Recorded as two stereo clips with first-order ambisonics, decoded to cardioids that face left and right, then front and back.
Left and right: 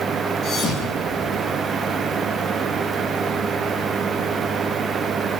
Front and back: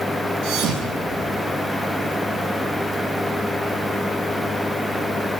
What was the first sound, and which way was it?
A thud, 145° left.